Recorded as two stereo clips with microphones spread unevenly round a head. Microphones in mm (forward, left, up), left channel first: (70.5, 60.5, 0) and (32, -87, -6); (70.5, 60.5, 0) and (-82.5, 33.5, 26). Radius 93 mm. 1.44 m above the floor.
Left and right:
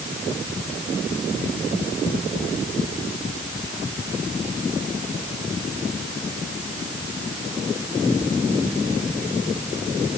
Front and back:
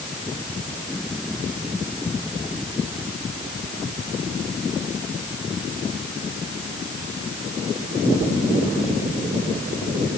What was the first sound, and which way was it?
Only background noise.